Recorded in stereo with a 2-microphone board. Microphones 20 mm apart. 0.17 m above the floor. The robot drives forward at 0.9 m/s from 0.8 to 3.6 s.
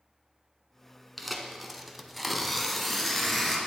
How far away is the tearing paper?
About 0.9 m.